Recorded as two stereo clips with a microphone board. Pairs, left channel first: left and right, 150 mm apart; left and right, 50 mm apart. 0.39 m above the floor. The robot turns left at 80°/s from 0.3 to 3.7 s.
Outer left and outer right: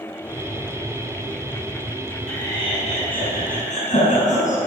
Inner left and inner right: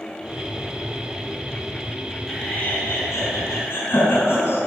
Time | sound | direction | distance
2.3 | laughter | 170° left | 5 m